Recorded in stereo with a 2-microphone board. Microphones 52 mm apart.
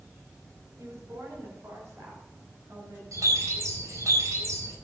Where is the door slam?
I don't hear a door slam.